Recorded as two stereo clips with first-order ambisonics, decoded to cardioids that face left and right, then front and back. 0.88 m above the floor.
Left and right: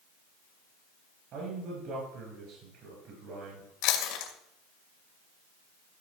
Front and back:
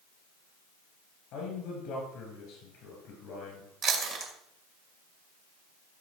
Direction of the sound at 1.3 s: 40° right.